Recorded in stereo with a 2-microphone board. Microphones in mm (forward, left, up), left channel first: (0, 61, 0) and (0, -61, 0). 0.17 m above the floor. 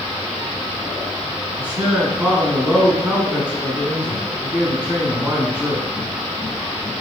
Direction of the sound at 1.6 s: 15° right (ahead or behind).